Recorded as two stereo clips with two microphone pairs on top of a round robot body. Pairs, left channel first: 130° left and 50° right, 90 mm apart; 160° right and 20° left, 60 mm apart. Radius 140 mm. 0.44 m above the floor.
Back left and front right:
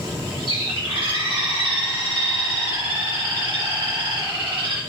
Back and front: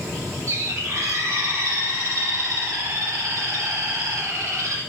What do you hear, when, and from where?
0.5 s a bird: 20° right, 6 m